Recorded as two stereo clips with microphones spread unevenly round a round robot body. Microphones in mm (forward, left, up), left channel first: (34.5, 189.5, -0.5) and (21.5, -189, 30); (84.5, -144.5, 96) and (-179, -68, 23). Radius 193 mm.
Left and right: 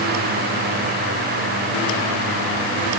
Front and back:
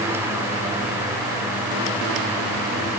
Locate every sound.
Only background noise.